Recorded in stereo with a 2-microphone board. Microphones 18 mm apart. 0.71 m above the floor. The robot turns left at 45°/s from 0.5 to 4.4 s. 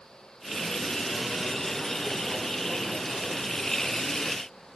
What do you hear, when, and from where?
Only background noise.